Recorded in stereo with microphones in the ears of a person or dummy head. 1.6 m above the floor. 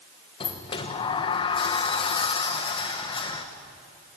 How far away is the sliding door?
About 1.4 m.